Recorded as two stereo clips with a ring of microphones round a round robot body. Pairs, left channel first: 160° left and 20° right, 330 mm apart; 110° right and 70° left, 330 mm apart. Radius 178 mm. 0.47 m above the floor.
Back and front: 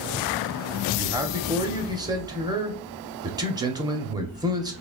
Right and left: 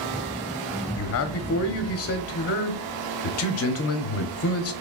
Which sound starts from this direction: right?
A man speaking, at 0.9 s.